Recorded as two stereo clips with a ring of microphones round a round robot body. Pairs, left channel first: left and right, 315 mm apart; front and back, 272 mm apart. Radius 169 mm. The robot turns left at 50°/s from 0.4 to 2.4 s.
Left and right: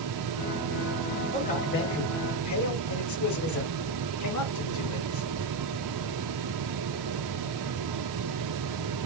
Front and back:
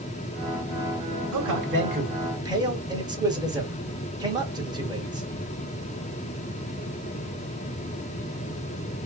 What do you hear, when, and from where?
1.3 s a man speaking: 160° left, 2.5 m; by 5.3 s 105° left, 2.5 m